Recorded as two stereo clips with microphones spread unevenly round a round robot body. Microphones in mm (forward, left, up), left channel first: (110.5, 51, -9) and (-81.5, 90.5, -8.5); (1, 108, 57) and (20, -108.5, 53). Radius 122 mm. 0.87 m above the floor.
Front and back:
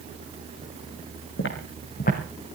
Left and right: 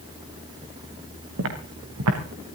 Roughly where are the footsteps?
Ahead right.